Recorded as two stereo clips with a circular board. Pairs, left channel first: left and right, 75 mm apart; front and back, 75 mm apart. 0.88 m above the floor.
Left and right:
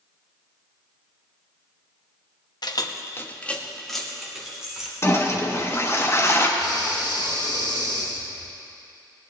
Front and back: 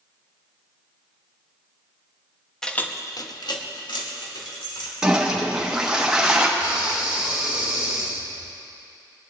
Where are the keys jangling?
80° left, 0.7 m; by 4.9 s 10° right, 2.5 m.